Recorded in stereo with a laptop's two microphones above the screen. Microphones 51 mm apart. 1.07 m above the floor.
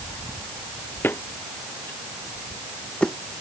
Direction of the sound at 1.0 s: 45° left (ahead or behind).